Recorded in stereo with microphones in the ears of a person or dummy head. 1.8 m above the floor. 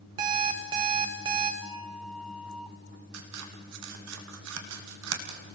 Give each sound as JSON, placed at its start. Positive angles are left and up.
{"t": 0.2, "sound": "an alarm clock", "side_deg": -20, "distance_m": 1.1}
{"t": 1.6, "sound": "a flute", "side_deg": -5, "distance_m": 4.0}
{"t": 3.1, "sound": "scissors", "side_deg": -85, "distance_m": 3.0}